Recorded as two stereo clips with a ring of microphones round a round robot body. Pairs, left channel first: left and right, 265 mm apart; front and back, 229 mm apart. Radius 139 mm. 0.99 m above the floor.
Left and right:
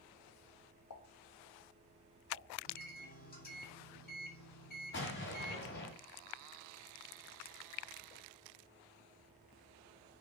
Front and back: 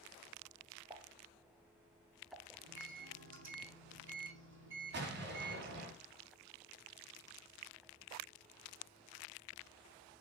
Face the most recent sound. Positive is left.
turn(degrees=140)